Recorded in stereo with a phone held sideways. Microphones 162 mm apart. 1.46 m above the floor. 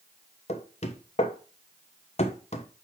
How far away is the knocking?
About 1.1 m.